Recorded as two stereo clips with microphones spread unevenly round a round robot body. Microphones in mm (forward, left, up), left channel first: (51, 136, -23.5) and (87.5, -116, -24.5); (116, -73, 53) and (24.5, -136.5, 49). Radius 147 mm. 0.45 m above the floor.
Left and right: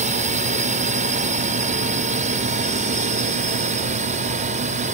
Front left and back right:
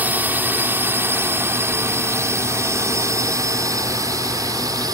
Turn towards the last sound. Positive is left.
turn(degrees=-125)